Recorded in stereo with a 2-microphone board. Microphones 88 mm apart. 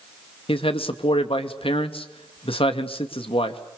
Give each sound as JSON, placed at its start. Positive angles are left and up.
{"t": 0.5, "sound": "a man speaking", "side_deg": 75, "distance_m": 2.0}